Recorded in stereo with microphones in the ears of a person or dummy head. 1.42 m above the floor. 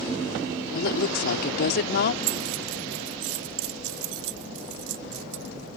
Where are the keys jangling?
75° right (ahead or behind).